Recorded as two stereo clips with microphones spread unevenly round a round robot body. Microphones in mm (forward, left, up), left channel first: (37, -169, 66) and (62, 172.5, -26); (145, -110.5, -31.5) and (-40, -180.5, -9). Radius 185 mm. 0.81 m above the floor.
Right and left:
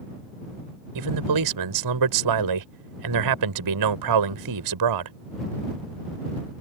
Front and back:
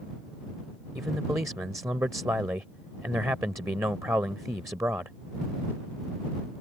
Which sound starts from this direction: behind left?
A man speaking, at 0.9 s.